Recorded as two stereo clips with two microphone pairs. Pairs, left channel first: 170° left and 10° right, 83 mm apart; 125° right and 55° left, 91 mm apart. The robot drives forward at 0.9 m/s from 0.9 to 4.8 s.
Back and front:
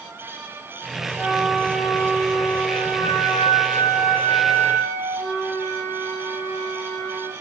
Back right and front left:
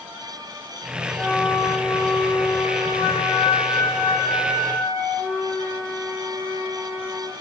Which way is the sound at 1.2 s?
75° right.